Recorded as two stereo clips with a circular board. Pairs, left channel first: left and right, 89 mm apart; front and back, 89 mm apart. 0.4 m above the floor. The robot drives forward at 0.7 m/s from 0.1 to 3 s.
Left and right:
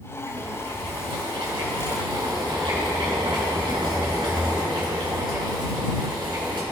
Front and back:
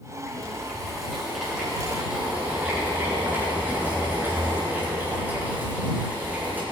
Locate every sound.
0.3 s boiling: 80° right, 3.5 m; by 6.6 s 115° right, 3.5 m